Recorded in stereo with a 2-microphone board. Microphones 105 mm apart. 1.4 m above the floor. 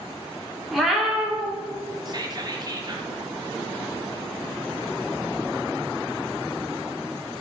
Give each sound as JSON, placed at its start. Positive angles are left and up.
{"t": 0.7, "sound": "a cat meowing", "side_deg": 0, "distance_m": 0.7}
{"t": 2.0, "sound": "whispering", "side_deg": -40, "distance_m": 0.6}